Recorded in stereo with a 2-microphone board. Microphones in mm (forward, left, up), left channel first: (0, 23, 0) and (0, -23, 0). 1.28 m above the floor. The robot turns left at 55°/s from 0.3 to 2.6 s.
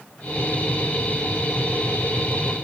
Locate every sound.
Only background noise.